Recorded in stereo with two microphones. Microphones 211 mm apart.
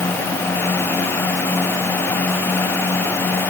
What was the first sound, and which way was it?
Only background noise.